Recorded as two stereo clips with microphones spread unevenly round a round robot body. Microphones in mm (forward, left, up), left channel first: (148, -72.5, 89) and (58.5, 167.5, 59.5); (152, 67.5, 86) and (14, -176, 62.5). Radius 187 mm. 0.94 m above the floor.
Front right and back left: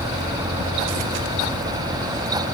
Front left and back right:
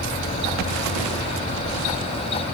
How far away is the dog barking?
No dog barking in this recording.